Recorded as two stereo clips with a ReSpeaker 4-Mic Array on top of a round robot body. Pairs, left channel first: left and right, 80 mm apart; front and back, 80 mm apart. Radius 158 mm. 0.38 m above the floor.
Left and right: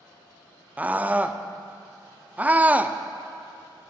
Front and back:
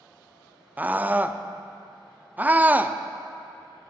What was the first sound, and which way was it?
A scream, 135° right.